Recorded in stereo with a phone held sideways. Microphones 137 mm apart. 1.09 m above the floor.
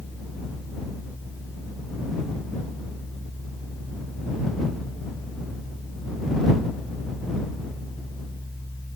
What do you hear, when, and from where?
0.0 s a fan: 20° right (ahead or behind)